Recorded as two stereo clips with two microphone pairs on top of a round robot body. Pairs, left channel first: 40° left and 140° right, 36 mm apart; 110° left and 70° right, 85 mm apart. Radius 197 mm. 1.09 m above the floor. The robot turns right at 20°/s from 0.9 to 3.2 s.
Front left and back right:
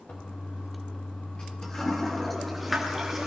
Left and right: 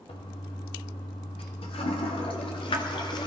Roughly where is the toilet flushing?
Left.